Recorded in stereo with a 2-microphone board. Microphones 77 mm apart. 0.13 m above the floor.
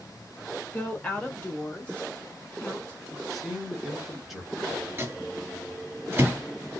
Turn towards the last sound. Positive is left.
turn(degrees=-30)  # may be behind; listen again after turning